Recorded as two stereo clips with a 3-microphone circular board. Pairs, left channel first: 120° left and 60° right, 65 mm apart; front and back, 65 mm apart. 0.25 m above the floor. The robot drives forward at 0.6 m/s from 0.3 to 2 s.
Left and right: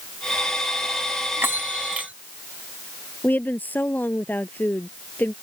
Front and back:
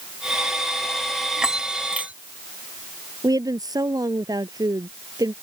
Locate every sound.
1.4 s a bell: 100° right; by 2.1 s 120° right
3.2 s a woman speaking: straight behind